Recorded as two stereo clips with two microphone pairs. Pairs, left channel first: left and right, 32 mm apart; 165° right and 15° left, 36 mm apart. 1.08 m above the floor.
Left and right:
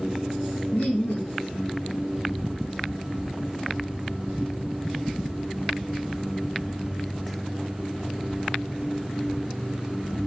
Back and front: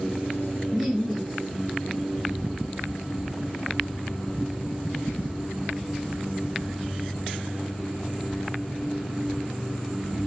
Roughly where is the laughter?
Left.